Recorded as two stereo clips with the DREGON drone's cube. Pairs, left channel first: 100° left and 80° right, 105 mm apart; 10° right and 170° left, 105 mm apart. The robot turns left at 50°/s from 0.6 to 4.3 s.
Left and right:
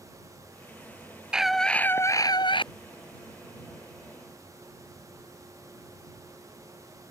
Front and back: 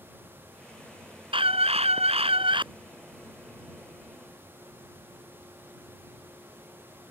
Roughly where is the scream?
Behind.